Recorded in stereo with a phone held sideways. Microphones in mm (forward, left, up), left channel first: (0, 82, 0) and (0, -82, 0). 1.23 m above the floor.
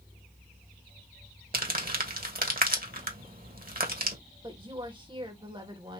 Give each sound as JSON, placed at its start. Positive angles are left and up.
{"t": 1.5, "sound": "crumpling", "side_deg": -60, "distance_m": 1.3}
{"t": 4.4, "sound": "a woman speaking", "side_deg": -30, "distance_m": 1.9}